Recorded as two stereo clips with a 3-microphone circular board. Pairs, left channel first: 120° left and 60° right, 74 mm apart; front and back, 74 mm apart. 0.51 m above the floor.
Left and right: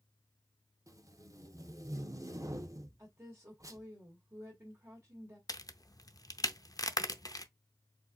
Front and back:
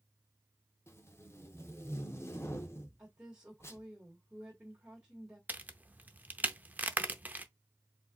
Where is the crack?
120° left, 0.6 m.